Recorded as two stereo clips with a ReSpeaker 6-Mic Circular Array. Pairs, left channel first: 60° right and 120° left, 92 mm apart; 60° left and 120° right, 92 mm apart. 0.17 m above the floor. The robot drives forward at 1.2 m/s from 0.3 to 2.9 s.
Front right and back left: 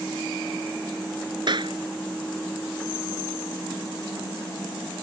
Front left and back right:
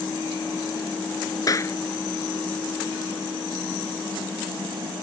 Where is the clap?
100° left; by 1.8 s 115° left.